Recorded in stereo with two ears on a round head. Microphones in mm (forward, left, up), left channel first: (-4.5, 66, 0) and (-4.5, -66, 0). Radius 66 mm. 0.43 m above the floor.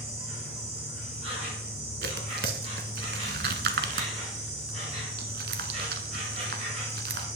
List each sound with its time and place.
0.0 s an insect: 45° right (ahead or behind), 5 m
2.0 s tearing paper: 70° right (ahead or behind), 0.9 m